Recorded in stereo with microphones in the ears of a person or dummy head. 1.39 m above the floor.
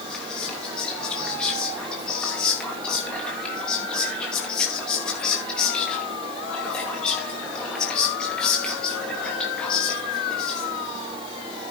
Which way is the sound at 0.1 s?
Centre (ahead or behind).